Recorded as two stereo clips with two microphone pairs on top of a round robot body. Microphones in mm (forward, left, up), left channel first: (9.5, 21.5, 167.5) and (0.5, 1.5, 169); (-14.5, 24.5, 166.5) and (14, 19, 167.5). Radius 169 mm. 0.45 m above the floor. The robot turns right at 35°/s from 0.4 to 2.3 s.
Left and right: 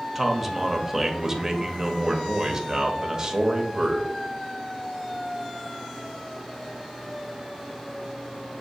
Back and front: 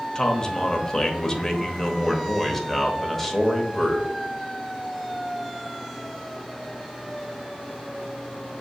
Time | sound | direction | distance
0.1 | a man speaking | 165° left | 1.0 m